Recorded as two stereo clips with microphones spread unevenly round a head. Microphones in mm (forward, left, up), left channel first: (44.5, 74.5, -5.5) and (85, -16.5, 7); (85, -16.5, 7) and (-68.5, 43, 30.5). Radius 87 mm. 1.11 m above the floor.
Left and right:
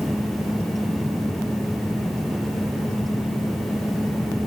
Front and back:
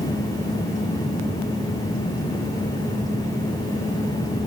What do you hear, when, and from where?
Only background noise.